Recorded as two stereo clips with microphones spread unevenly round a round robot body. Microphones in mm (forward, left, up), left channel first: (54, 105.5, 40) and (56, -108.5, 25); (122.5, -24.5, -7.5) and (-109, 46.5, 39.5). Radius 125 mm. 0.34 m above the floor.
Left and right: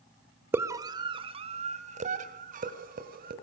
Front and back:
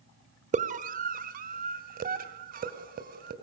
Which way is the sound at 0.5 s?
145° right.